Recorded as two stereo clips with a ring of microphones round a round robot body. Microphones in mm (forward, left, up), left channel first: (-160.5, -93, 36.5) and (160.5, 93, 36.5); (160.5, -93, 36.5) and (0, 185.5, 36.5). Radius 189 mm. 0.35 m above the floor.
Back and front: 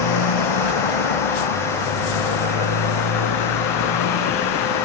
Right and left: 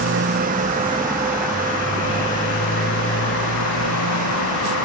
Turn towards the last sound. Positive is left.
turn(degrees=-105)